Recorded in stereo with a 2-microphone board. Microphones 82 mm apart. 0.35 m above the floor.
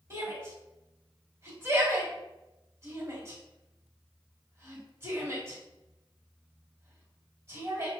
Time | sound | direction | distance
0.1 | a shout | 35° right (ahead or behind) | 1.8 m